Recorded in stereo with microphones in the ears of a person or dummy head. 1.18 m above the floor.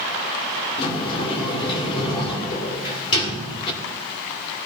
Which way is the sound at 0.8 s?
25° left (ahead or behind).